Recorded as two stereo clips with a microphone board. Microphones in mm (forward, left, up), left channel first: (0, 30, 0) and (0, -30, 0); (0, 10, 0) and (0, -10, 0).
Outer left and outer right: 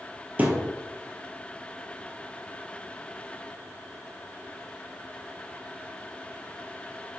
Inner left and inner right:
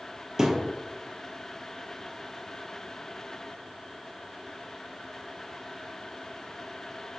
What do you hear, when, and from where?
0.4 s a thud: 25° right (ahead or behind), 1.5 m